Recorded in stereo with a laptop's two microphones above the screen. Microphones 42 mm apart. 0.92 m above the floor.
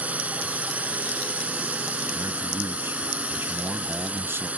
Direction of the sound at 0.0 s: 35° right (ahead or behind).